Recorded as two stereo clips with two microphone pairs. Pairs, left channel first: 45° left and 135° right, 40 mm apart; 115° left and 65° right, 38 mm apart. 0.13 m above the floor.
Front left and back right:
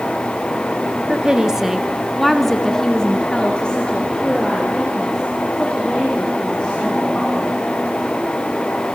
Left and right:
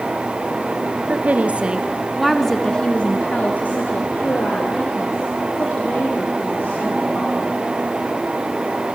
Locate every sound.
1.1 s a woman speaking: 70° right, 2.5 m; by 7.5 s 105° left, 8.5 m